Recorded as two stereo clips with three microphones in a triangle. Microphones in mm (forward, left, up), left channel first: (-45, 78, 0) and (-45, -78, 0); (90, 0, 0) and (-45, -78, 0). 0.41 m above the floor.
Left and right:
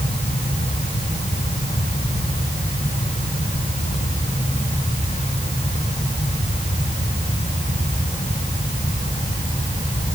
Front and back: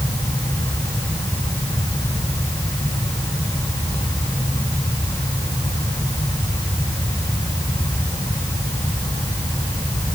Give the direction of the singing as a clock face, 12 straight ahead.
No singing in this recording.